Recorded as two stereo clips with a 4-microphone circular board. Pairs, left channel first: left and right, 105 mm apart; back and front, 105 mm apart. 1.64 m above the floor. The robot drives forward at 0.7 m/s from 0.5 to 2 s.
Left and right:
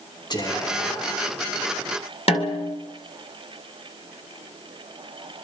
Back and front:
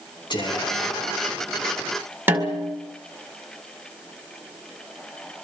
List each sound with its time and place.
0.3 s whispering: 135° left, 3 m; by 1.3 s 145° left, 3.5 m
2.3 s a snare drum: 70° left, 2.5 m